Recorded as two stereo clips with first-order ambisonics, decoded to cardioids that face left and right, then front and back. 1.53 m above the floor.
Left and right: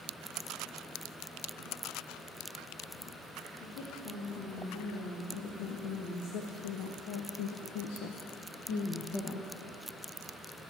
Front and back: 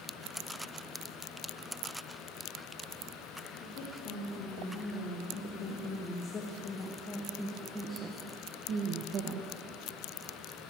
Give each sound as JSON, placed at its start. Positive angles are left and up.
{"t": 3.6, "sound": "a woman speaking", "azimuth_deg": 45, "distance_m": 2.5}